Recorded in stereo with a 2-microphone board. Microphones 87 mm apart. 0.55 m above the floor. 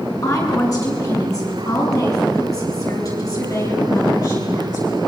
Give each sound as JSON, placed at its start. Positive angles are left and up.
{"t": 0.2, "sound": "a woman speaking", "side_deg": 40, "distance_m": 7.5}